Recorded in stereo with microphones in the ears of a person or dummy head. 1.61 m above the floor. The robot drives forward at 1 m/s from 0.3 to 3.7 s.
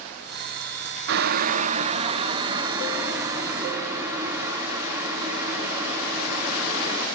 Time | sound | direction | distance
1.1 | boiling | 70° right (ahead or behind) | 0.9 m